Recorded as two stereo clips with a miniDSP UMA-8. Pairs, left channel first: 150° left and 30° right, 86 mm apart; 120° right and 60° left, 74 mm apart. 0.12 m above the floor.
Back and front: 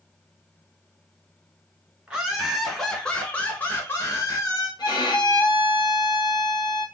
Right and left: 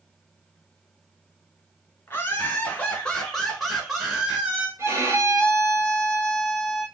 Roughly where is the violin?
Behind left.